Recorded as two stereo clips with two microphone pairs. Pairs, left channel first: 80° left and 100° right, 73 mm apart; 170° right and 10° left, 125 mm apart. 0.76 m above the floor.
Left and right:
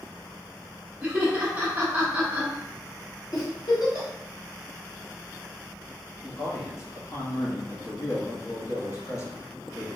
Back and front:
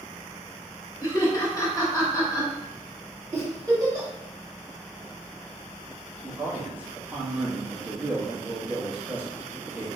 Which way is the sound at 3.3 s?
70° left.